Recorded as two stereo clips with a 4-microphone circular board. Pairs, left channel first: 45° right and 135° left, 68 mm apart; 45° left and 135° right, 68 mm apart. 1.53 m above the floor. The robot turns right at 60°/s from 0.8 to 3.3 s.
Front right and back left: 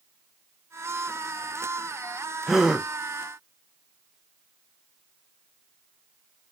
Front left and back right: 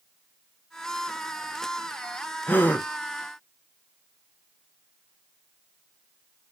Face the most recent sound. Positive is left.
turn(degrees=100)